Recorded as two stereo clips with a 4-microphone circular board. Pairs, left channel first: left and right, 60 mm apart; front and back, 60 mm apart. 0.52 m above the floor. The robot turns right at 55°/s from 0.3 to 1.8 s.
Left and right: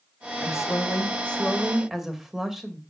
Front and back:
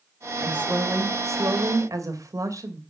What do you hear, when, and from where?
0.4 s a woman speaking: 110° left, 2 m; by 2.8 s 175° right, 2 m